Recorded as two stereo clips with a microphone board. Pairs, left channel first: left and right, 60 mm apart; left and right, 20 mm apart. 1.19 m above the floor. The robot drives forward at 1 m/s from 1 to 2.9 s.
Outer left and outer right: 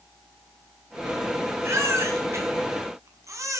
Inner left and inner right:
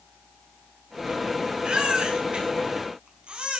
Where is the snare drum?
No snare drum in this recording.